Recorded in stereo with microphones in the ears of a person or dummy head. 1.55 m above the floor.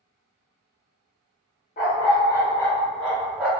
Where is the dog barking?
35° left (ahead or behind), 1.1 m; by 3.5 s 10° right (ahead or behind), 1.4 m.